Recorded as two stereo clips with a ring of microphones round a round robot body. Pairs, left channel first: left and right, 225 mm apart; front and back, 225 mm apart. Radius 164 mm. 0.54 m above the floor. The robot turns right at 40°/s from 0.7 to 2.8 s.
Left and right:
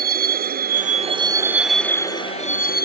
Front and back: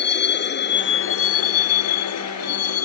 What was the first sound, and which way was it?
A vehicle, 40° right.